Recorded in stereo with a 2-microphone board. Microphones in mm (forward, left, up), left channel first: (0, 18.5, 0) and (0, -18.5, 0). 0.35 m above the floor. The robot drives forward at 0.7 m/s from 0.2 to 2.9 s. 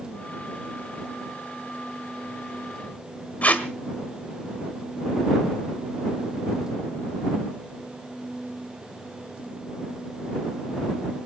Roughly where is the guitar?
I don't hear a guitar.